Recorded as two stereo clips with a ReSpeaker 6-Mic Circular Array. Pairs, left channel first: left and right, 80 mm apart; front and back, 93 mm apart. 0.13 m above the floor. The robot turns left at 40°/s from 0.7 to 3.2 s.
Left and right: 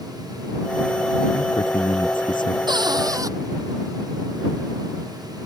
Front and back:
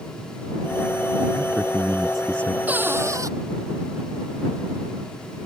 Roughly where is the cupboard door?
Right.